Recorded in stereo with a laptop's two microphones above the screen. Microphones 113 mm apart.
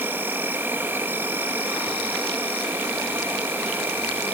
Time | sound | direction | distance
0.0 | an insect | 20° right (ahead or behind) | 1.5 m